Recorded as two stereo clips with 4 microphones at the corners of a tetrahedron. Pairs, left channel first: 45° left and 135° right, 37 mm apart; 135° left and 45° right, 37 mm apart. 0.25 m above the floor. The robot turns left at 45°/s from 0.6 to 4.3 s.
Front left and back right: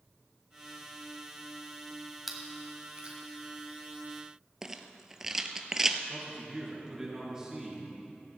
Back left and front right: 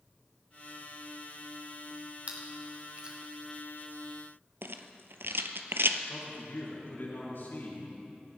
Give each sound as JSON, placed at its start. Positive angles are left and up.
{"t": 2.3, "sound": "chewing", "azimuth_deg": -55, "distance_m": 1.8}
{"t": 4.6, "sound": "a rattle", "azimuth_deg": -55, "distance_m": 0.8}
{"t": 6.1, "sound": "a man speaking", "azimuth_deg": 150, "distance_m": 5.0}